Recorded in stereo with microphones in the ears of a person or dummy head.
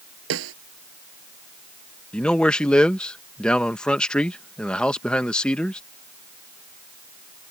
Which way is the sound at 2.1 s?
10° left (ahead or behind).